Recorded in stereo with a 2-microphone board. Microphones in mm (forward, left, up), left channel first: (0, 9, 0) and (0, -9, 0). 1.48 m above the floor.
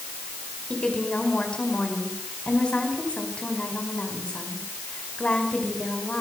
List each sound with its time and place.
0.7 s a woman speaking: 85° left, 5 m